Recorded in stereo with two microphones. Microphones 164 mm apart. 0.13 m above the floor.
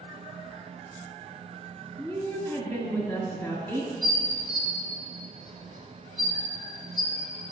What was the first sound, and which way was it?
A woman speaking, 5° left (ahead or behind).